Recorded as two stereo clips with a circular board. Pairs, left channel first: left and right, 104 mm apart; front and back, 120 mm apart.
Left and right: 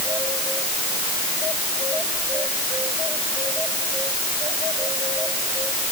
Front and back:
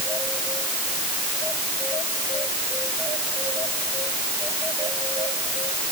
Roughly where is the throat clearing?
No throat clearing in this recording.